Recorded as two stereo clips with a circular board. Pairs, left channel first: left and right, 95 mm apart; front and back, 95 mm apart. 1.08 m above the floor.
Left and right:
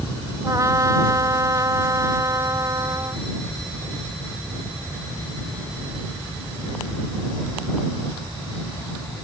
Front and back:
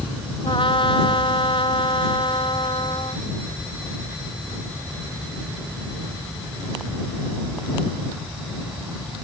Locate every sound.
0.4 s a trumpet: 35° right